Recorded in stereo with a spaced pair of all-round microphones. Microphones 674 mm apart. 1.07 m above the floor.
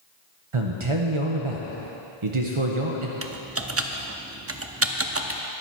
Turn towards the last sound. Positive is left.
turn(degrees=-20)  # may be behind; listen again after turning